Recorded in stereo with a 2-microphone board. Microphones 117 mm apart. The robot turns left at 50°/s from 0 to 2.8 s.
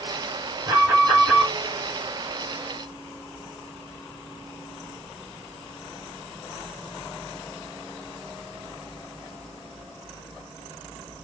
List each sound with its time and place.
0.7 s an alarm: 125° right, 2.5 m; by 1.5 s 170° right, 2.5 m